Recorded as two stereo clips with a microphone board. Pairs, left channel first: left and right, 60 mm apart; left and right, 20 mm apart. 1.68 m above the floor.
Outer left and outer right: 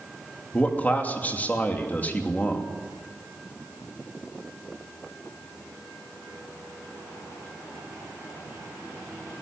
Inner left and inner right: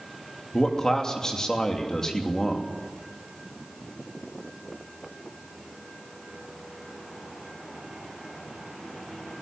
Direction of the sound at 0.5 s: 25° left (ahead or behind).